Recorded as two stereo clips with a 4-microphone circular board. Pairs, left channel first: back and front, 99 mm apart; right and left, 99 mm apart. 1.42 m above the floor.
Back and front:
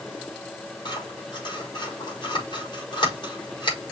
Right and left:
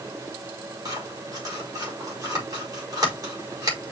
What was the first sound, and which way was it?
Scissors, 140° left.